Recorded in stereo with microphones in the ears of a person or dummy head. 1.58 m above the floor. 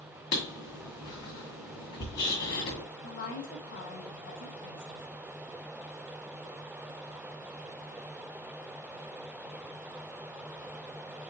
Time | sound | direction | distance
0.3 | writing | 45° left (ahead or behind) | 1.9 m
3.0 | a woman speaking | 65° left (ahead or behind) | 2 m